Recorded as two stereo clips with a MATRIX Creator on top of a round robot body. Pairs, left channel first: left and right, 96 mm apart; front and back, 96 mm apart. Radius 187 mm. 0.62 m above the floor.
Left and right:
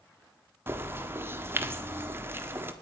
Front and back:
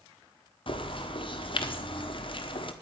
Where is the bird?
25° right, 1.5 m.